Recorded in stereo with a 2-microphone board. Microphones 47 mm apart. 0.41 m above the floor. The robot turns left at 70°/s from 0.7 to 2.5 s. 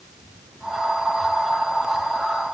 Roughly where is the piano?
No piano in this recording.